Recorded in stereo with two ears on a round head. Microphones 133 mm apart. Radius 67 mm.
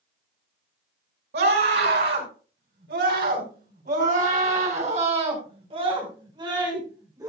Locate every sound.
1.3 s a scream: 85° right, 5.5 m; by 7.3 s 25° right (ahead or behind), 5.5 m